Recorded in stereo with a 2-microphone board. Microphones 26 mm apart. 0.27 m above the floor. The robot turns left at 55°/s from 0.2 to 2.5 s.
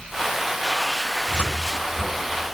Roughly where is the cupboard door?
Left.